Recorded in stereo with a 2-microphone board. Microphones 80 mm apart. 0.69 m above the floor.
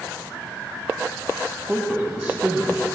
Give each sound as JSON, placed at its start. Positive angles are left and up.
{"t": 1.7, "sound": "a man speaking", "side_deg": -20, "distance_m": 0.7}